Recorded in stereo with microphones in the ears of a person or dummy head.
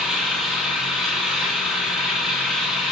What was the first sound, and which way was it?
An engine running, centre (ahead or behind).